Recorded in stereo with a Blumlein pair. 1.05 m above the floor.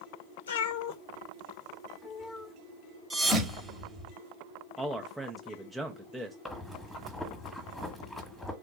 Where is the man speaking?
5° right, 0.6 m.